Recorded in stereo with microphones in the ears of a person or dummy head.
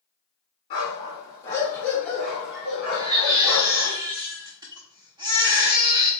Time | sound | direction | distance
0.7 | a dog barking | 35° left (ahead or behind) | 1.6 m
2.9 | a baby crying | 20° right (ahead or behind) | 0.6 m